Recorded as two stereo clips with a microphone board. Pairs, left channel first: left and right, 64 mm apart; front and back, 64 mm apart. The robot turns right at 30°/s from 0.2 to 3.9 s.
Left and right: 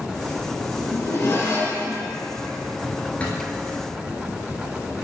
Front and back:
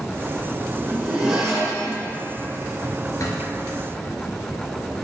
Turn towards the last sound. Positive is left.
turn(degrees=45)